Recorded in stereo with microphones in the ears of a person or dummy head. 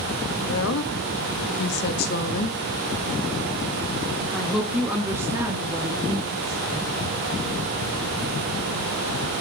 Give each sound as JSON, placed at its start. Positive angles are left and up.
{"t": 0.5, "sound": "a woman speaking", "side_deg": 85, "distance_m": 2.0}